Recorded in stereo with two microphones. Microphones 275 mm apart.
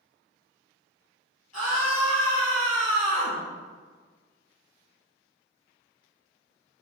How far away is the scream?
About 3 m.